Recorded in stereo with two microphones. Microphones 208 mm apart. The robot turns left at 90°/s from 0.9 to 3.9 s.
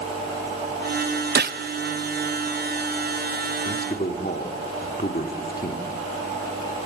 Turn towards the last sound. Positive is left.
turn(degrees=40)  # may be behind; listen again after turning